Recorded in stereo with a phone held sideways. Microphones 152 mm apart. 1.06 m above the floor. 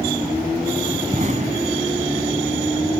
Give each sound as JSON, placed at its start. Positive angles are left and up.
{"t": 1.1, "sound": "an explosion", "side_deg": -50}